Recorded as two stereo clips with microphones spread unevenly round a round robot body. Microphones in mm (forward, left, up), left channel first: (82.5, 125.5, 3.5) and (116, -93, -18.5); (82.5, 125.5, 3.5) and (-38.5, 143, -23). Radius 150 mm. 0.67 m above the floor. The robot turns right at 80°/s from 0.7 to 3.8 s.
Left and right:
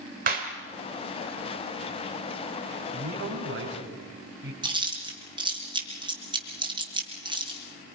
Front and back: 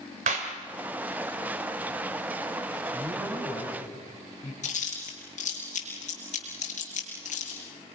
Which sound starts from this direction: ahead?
Chewing, at 4.6 s.